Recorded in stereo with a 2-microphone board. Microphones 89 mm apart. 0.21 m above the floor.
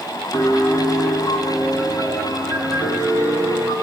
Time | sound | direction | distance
0.3 | a piano | 45° left (ahead or behind) | 7 m